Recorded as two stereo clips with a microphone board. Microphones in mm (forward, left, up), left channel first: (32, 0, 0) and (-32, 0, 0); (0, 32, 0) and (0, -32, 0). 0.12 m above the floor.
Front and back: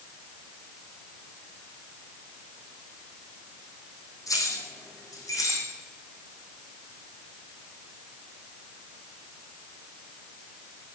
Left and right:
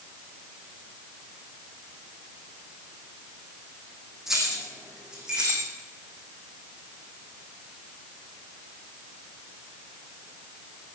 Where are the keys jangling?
5° right, 4 m; by 5.7 s 15° right, 5 m.